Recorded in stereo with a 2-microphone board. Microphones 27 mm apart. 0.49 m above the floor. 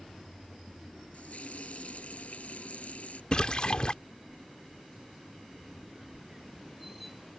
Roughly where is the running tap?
Left.